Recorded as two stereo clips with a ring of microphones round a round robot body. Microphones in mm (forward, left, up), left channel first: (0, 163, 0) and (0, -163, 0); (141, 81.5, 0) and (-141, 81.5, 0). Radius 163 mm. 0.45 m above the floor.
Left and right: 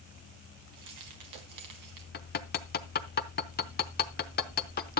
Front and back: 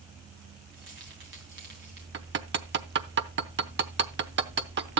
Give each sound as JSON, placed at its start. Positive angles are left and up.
{"t": 0.7, "sound": "keys jangling", "azimuth_deg": -120, "distance_m": 2.5}
{"t": 2.1, "sound": "hammering", "azimuth_deg": 145, "distance_m": 0.9}